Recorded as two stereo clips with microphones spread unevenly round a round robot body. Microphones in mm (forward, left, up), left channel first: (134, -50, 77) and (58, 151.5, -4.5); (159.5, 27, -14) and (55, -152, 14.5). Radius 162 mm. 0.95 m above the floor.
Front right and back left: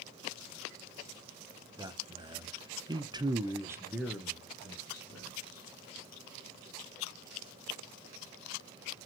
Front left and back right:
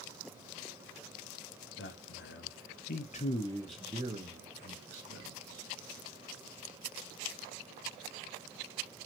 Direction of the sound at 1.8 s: 50° left.